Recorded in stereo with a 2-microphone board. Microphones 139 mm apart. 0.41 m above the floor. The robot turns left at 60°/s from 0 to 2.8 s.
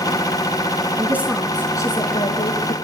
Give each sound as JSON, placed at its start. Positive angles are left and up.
{"t": 1.0, "sound": "a woman speaking", "azimuth_deg": -155, "distance_m": 4.0}